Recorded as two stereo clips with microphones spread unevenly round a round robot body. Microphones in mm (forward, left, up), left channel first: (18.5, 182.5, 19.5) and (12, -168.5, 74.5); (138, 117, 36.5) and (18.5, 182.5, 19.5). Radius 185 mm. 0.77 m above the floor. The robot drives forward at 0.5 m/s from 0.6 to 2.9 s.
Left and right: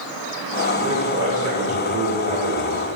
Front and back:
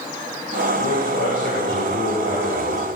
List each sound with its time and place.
0.7 s a man speaking: 30° right, 3.5 m; by 2.9 s 45° right, 2.5 m